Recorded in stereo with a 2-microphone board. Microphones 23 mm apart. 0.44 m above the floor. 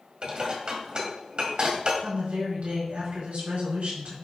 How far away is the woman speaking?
About 4.5 m.